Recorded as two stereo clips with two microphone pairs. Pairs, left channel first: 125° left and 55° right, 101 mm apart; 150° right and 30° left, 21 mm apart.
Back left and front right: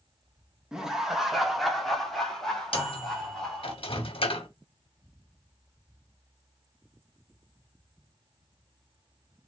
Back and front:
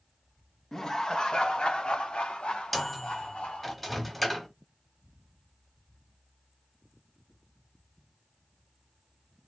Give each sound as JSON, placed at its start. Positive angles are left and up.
{"t": 0.7, "sound": "laughter", "azimuth_deg": -135, "distance_m": 1.0}
{"t": 2.7, "sound": "a microwave", "azimuth_deg": 125, "distance_m": 1.1}